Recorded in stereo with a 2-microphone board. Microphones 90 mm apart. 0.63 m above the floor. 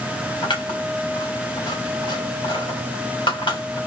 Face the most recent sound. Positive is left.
turn(degrees=70)  # may be behind; listen again after turning